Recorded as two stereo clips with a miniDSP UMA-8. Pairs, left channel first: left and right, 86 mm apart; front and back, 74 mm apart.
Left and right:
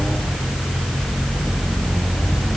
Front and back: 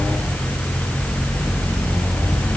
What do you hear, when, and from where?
Only background noise.